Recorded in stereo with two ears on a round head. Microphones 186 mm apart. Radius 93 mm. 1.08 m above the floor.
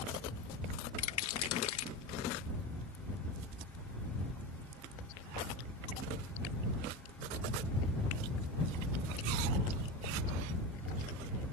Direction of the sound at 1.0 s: 80° left.